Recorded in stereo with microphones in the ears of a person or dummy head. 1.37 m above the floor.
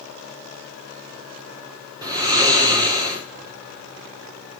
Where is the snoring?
25° right (ahead or behind), 5.5 m.